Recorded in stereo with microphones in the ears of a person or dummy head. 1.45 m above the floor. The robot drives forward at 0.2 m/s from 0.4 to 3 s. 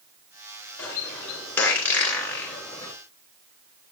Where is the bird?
5° left (ahead or behind), 2.5 m.